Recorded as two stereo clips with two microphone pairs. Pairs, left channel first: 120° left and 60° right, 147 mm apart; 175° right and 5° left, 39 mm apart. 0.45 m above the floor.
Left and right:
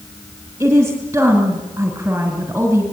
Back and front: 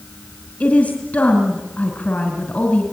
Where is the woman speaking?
135° right, 2.5 m.